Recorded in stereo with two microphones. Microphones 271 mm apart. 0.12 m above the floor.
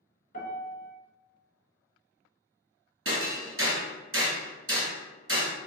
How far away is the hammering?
About 1.1 m.